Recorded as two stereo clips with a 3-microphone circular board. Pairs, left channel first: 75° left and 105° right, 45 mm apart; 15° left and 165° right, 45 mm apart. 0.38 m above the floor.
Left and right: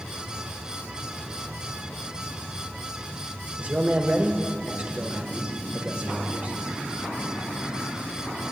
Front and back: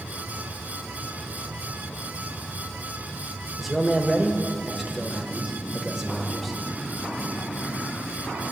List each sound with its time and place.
3.6 s a man speaking: 85° right, 1.2 m